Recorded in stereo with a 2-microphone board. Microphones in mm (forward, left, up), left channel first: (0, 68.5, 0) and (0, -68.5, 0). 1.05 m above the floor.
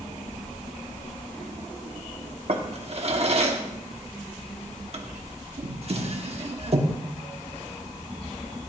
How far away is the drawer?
About 1.0 m.